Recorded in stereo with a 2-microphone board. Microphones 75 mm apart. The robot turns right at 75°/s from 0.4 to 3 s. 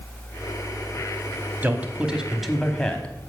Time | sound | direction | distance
1.6 | a man speaking | 25° right (ahead or behind) | 1.0 m